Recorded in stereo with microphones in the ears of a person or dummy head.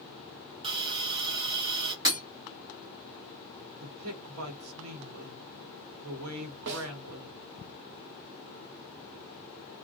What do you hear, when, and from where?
0.6 s a hiss: 30° right (ahead or behind), 0.5 m
2.0 s breaking glass: 20° right (ahead or behind), 1.3 m
3.8 s a man speaking: 80° right, 0.9 m
6.7 s a snare drum: 65° right (ahead or behind), 0.6 m